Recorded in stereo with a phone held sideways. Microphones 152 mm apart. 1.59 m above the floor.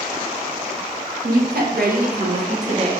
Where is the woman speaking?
80° right, 1.6 m; by 2.9 s 40° right (ahead or behind), 1.4 m.